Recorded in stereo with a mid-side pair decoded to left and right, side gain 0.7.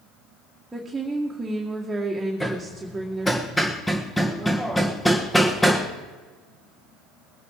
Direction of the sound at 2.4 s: 5° left.